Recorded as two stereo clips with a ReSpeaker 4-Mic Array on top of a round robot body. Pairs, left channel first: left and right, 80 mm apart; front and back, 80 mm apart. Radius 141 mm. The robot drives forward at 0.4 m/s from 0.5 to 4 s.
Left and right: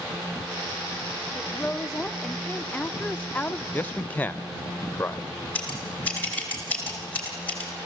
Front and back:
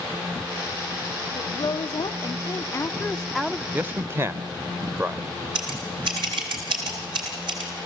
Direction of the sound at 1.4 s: 5° left.